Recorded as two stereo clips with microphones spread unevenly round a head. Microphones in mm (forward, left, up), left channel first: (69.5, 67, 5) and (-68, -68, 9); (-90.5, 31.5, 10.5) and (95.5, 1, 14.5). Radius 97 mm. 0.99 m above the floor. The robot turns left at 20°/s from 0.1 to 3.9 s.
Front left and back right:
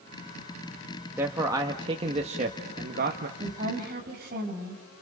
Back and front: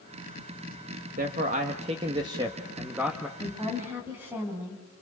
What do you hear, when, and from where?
1.2 s a man speaking: 55° right, 1.4 m; by 3.3 s 100° right, 1.4 m
3.4 s a woman speaking: 80° right, 6.5 m; by 5.0 s 90° right, 6.5 m